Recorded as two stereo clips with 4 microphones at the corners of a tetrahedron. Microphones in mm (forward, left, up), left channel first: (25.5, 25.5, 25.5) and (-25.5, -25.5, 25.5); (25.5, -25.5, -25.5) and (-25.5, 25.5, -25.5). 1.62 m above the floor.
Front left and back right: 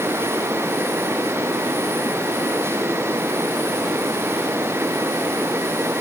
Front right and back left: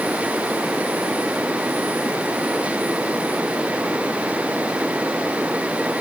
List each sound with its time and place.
Only background noise.